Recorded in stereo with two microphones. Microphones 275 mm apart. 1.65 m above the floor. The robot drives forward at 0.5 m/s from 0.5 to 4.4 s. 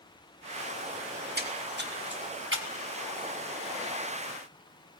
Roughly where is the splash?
Right.